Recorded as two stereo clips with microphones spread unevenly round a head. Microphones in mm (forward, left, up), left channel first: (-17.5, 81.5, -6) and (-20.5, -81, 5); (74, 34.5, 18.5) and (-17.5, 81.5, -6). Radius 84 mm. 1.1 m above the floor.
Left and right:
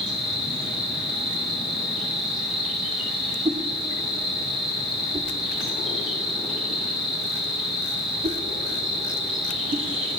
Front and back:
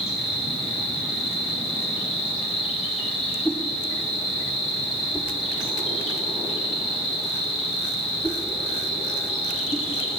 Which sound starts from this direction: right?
A whoosh, at 3.5 s.